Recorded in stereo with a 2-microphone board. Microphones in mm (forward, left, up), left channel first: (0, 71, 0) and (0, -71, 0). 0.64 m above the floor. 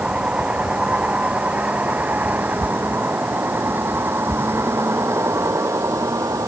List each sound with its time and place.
0.0 s a vehicle: 10° right (ahead or behind); by 6.5 s 20° right (ahead or behind)